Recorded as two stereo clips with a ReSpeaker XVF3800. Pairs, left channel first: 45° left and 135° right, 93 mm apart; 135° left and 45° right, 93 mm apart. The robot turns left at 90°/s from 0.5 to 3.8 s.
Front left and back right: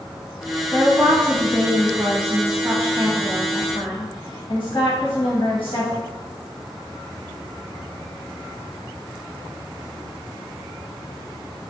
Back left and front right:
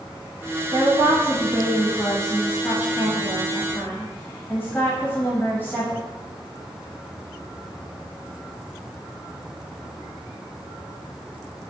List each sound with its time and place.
0.7 s a woman speaking: 15° right, 1.1 m; by 6.0 s 65° left, 1.1 m